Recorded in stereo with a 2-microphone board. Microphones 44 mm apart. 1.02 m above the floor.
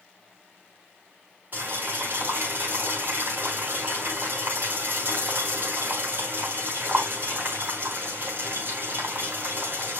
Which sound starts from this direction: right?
Boiling, at 1.5 s.